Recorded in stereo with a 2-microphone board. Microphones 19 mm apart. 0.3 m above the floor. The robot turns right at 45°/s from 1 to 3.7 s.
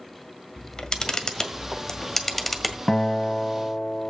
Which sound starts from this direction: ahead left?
A guitar, at 2.9 s.